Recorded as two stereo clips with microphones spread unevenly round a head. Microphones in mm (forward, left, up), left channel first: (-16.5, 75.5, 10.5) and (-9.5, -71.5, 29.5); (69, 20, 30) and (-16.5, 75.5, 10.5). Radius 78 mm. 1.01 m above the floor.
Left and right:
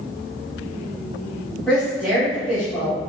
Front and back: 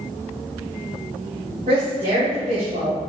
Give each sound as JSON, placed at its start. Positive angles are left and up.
{"t": 1.7, "sound": "a woman speaking", "azimuth_deg": 175, "distance_m": 1.9}